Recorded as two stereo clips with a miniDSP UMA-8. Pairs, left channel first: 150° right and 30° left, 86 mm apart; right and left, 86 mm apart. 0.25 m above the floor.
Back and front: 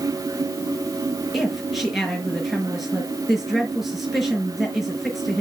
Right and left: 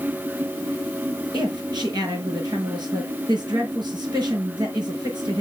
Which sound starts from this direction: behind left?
A woman speaking, at 1.3 s.